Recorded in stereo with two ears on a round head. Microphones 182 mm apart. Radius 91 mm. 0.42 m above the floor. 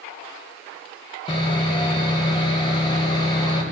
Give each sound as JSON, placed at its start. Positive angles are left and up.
{"t": 1.3, "sound": "sawing", "side_deg": 25, "distance_m": 1.5}